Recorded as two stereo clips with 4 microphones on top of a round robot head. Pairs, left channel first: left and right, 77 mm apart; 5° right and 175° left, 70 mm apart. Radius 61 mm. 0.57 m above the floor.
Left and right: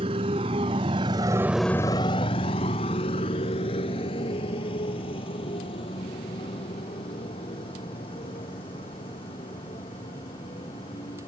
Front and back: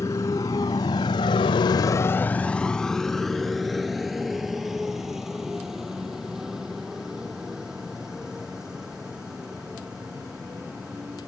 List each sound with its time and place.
0.0 s a motorcycle: 70° right; by 11.3 s 95° left